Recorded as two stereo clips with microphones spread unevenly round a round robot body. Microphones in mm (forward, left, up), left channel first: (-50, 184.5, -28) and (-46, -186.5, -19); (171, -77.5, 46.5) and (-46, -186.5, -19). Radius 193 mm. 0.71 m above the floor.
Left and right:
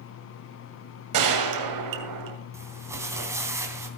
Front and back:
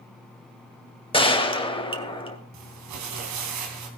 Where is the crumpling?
170° right, 3 m.